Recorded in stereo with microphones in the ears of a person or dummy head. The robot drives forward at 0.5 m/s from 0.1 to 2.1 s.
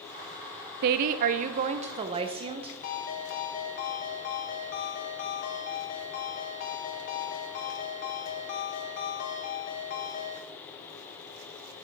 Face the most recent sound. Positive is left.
turn(degrees=65)  # may be behind; listen again after turning